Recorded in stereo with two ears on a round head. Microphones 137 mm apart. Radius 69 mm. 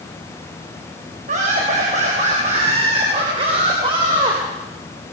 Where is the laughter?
50° right (ahead or behind), 5 m; by 4.4 s 30° right (ahead or behind), 4 m.